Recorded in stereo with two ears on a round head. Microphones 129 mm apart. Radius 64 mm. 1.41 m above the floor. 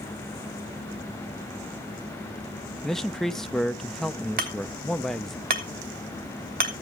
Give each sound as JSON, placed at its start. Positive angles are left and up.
{"t": 2.8, "sound": "a man speaking", "side_deg": 5, "distance_m": 0.5}
{"t": 4.4, "sound": "hammering", "side_deg": -70, "distance_m": 2.5}